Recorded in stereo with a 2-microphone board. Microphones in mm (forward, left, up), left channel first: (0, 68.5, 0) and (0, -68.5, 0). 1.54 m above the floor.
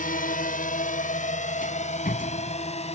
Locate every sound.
0.0 s a drone: 85° left; by 3.0 s 50° left (ahead or behind)
1.6 s a rattle: 80° left